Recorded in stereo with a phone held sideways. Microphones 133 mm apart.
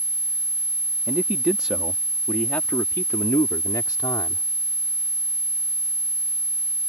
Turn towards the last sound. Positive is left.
turn(degrees=35)  # may be behind; listen again after turning